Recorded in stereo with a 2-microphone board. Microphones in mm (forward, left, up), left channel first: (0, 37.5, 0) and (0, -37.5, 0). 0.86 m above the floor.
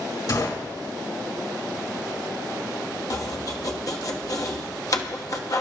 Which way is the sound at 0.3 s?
55° left (ahead or behind).